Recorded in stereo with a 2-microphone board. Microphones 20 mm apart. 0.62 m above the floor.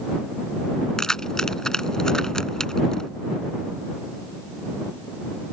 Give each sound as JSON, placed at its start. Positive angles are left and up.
{"t": 1.0, "sound": "keys jangling", "side_deg": 35}